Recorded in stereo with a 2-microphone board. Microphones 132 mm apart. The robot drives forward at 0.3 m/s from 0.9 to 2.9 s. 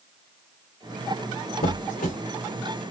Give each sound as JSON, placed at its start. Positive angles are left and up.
{"t": 1.6, "sound": "a squeak", "side_deg": 75, "distance_m": 1.9}